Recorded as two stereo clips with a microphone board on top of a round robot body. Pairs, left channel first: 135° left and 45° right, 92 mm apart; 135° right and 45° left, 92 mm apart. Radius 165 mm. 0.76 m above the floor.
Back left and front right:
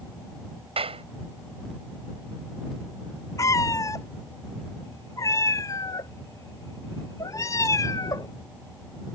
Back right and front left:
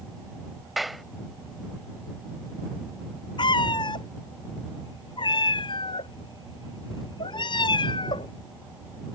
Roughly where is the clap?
Ahead right.